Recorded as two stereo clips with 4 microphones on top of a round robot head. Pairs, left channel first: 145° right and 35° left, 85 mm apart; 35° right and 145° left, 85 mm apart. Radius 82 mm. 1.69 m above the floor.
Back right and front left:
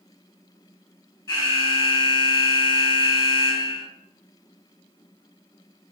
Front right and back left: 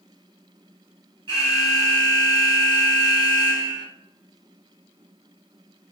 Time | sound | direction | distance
1.3 | an alarm | 170° left | 1.0 m